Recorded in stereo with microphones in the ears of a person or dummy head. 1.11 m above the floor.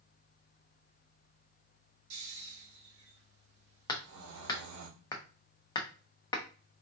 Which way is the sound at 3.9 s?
20° left (ahead or behind).